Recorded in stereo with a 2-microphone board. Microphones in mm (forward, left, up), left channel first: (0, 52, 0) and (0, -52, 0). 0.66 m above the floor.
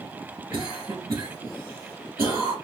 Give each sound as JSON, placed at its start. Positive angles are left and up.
{"t": 0.5, "sound": "a cough", "side_deg": -35, "distance_m": 1.3}